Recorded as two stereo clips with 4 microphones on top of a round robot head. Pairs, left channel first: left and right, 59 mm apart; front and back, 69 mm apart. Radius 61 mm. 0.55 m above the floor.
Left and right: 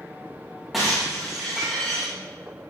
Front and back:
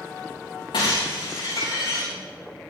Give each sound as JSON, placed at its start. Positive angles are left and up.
{"t": 0.7, "sound": "breaking glass", "azimuth_deg": -5, "distance_m": 8.0}